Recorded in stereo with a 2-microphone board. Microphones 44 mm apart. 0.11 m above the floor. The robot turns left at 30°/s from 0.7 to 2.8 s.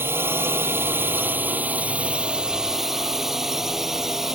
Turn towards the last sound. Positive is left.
turn(degrees=-170)